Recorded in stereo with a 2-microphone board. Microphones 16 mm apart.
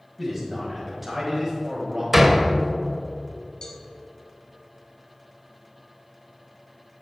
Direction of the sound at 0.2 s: Centre (ahead or behind).